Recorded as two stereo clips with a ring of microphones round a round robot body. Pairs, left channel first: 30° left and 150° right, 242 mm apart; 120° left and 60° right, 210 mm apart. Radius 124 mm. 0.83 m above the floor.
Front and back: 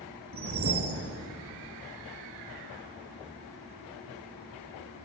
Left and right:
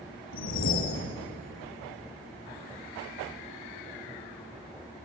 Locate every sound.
0.3 s a whoosh: 160° left, 3 m